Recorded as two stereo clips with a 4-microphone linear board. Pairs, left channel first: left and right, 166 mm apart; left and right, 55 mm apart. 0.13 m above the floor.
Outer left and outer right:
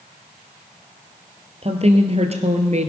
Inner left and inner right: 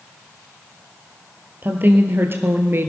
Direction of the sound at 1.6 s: 40° right (ahead or behind).